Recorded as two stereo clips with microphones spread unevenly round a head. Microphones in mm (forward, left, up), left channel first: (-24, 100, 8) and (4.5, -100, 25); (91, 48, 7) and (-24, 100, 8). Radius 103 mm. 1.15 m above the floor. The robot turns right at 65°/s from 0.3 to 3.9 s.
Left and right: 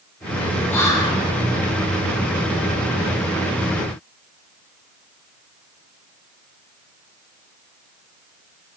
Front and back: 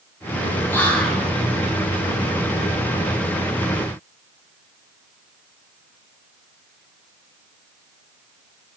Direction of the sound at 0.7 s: 35° left.